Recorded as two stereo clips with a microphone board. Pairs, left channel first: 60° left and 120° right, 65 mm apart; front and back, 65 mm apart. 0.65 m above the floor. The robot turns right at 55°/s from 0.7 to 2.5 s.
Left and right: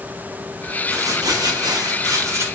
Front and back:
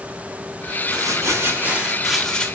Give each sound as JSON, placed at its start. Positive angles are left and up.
{"t": 0.9, "sound": "crumpling", "azimuth_deg": -160, "distance_m": 0.8}